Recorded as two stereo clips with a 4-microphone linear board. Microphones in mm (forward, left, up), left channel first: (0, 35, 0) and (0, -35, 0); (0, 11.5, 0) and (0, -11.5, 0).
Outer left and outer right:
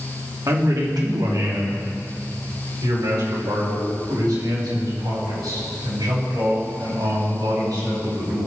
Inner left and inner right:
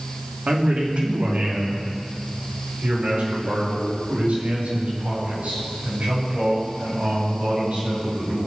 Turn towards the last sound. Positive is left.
turn(degrees=-75)  # may be behind; listen again after turning